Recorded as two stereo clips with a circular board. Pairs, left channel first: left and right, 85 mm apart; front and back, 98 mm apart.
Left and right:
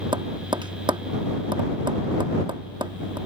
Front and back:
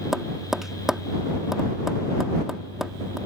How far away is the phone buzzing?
No phone buzzing in this recording.